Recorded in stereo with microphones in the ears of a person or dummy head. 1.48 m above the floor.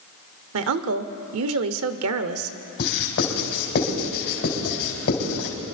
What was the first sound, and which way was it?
A woman speaking, 70° right (ahead or behind).